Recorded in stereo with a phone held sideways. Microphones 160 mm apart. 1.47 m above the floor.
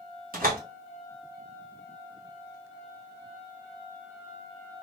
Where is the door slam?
60° right (ahead or behind), 1.3 m.